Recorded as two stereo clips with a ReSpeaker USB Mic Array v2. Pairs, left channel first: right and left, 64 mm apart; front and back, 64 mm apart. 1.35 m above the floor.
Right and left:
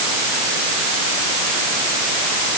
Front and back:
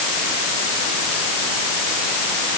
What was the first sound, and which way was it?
Only background noise.